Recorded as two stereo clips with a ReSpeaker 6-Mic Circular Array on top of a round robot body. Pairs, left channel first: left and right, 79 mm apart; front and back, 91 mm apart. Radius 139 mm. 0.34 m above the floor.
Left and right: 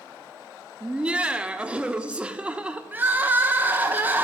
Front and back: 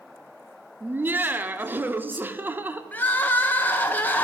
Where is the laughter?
145° right, 0.8 m.